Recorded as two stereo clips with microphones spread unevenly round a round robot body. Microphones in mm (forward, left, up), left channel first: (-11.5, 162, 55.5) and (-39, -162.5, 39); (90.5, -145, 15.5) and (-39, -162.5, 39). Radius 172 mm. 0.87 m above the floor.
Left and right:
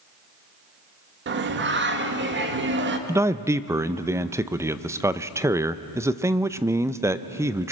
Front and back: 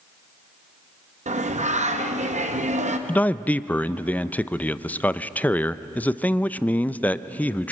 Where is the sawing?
I don't hear sawing.